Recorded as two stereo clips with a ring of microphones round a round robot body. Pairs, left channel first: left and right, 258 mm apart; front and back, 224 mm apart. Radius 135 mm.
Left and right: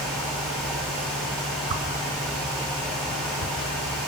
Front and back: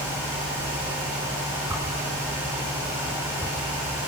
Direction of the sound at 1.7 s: 100° right.